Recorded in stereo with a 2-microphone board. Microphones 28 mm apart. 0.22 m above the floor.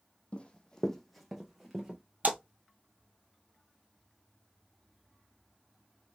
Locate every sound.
0.3 s running footsteps: 45° left (ahead or behind), 0.5 m; by 2.0 s 15° right (ahead or behind), 1.1 m
2.2 s a splash: 65° right (ahead or behind), 1.1 m